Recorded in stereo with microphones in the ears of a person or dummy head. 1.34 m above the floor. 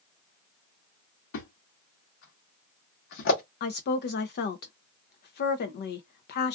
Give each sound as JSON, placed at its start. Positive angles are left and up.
{"t": 1.3, "sound": "a thud", "side_deg": 60, "distance_m": 1.1}
{"t": 3.6, "sound": "a woman speaking", "side_deg": 55, "distance_m": 0.6}